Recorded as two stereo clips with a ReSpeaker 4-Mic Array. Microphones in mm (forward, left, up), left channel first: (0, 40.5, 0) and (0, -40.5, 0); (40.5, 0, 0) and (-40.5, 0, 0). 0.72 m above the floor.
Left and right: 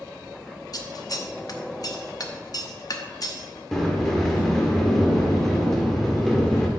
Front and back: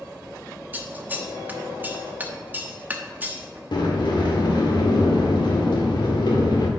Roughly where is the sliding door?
Ahead.